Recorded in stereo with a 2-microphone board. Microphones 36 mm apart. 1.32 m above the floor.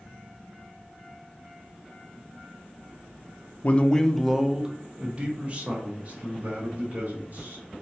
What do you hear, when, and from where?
3.6 s a man speaking: 40° left (ahead or behind), 0.5 m; by 7.6 s 45° right (ahead or behind), 2.5 m